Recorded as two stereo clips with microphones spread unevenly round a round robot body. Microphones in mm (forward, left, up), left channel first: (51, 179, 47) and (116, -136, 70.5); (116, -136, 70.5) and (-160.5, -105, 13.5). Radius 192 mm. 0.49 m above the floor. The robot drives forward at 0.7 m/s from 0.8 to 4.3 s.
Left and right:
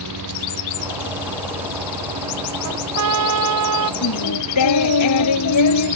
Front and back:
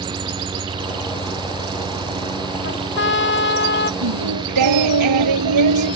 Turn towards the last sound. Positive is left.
turn(degrees=145)